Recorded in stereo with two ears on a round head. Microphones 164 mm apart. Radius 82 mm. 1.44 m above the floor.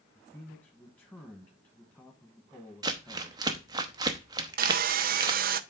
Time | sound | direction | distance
0.1 | a man speaking | 10° left (ahead or behind) | 1.4 m
2.8 | crumpling | 20° right (ahead or behind) | 0.8 m
4.6 | sawing | 50° right (ahead or behind) | 0.5 m